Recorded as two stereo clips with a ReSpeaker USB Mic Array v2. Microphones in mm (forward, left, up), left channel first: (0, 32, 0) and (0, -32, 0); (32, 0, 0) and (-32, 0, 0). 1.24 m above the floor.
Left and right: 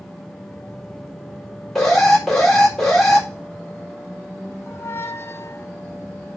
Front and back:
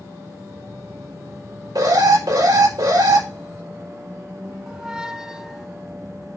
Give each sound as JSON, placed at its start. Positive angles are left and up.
{"t": 1.8, "sound": "an alarm", "azimuth_deg": 175, "distance_m": 4.0}
{"t": 4.7, "sound": "a squeak", "azimuth_deg": 105, "distance_m": 0.6}